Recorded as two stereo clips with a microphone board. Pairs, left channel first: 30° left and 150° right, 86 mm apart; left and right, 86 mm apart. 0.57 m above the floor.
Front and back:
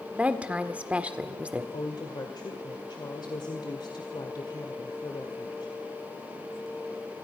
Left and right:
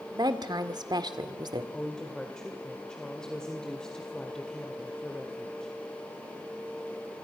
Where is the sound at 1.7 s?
10° left, 2 m.